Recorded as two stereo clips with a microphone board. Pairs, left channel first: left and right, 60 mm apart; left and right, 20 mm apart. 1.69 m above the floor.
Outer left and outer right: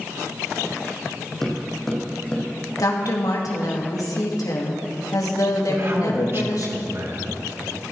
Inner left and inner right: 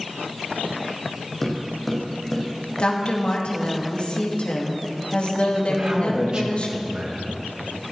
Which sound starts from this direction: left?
A woman speaking, at 2.8 s.